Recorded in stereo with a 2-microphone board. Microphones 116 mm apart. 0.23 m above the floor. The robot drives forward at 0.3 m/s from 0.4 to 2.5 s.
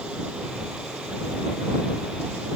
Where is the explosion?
I don't hear an explosion.